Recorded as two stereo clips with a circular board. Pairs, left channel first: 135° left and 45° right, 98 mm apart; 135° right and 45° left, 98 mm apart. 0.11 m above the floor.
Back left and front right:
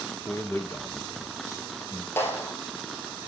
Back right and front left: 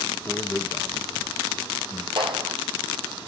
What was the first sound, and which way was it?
A man speaking, straight behind.